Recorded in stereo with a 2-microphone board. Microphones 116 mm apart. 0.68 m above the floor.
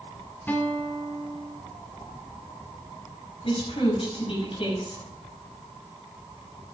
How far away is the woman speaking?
About 6.5 m.